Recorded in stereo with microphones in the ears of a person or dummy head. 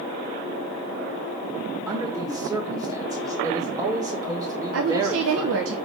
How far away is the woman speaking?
About 1.3 m.